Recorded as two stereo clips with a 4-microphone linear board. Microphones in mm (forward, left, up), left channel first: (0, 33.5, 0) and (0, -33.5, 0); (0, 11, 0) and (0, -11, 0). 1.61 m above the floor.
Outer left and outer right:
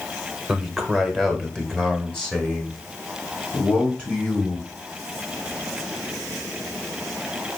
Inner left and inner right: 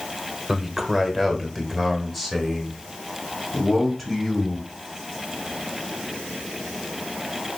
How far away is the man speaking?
About 1.3 m.